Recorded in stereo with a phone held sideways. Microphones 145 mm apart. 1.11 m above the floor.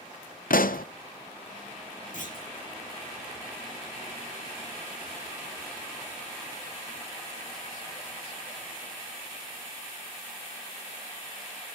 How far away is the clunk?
About 3.5 m.